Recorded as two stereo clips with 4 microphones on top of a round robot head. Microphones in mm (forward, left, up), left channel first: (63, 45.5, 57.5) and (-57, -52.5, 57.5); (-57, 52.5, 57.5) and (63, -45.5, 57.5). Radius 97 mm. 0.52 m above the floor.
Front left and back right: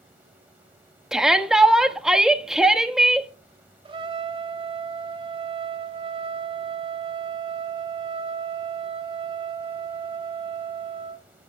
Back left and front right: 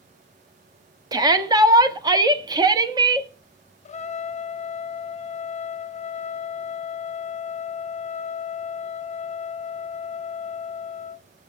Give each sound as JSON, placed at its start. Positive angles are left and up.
{"t": 1.1, "sound": "a shout", "azimuth_deg": -55, "distance_m": 1.2}
{"t": 3.9, "sound": "a trumpet", "azimuth_deg": 170, "distance_m": 0.7}